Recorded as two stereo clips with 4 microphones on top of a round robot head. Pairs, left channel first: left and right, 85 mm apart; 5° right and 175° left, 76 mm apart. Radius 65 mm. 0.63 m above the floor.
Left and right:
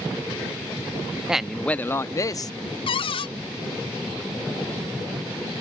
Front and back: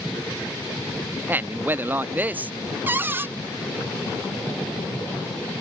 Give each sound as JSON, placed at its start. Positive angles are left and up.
{"t": 1.3, "sound": "a man speaking", "azimuth_deg": -160}
{"t": 2.9, "sound": "a cupboard door", "azimuth_deg": 110}